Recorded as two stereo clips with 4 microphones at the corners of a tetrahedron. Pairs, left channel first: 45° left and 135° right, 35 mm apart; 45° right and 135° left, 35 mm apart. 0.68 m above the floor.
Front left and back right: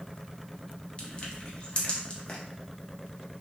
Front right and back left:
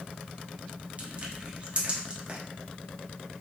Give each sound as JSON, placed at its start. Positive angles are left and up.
{"t": 1.0, "sound": "crushing", "azimuth_deg": 95, "distance_m": 0.7}